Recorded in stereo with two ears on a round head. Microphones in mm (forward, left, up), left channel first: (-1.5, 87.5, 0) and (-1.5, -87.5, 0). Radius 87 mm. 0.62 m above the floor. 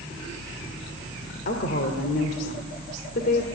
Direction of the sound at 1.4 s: 50° left (ahead or behind).